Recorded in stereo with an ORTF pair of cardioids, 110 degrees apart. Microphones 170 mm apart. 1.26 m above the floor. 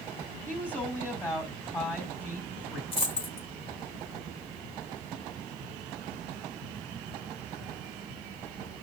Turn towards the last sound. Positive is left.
turn(degrees=35)